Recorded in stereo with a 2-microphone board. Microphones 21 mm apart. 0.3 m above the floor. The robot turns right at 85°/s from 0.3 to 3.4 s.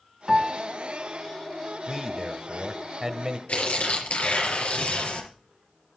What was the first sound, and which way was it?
A piano, 10° right (ahead or behind).